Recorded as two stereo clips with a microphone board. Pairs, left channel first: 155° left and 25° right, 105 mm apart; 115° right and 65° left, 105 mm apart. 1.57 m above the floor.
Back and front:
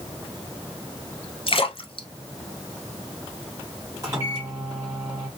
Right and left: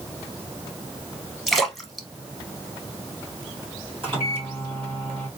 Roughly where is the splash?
Behind left.